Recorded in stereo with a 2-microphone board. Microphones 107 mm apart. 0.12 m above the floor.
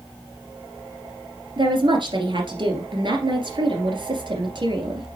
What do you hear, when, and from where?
1.6 s a woman speaking: 50° right (ahead or behind), 2.5 m